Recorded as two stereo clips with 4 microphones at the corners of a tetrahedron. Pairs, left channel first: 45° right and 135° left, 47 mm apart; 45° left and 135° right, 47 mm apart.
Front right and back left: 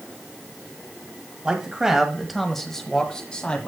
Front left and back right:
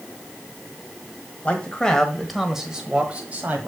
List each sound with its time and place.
1.4 s a man speaking: 85° left, 1.5 m; by 3.7 s 100° right, 1.7 m